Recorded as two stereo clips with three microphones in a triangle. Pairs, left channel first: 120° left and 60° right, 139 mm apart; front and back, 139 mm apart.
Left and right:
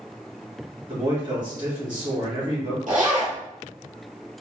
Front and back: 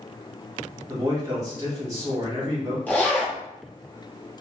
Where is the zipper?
80° right, 1.7 m.